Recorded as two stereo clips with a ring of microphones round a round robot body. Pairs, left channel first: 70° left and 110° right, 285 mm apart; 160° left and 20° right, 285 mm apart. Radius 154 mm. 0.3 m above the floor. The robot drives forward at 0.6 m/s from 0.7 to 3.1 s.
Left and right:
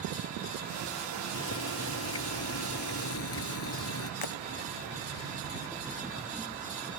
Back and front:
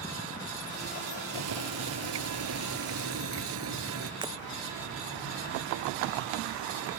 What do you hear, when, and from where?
1.3 s boiling: 20° left; by 4.1 s 25° left
4.2 s breaking glass: 55° left